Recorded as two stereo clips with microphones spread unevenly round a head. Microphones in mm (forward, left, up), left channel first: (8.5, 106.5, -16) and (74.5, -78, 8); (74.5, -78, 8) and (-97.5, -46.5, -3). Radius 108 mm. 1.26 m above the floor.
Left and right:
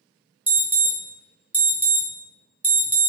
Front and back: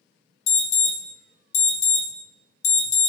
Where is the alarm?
10° left, 0.8 m.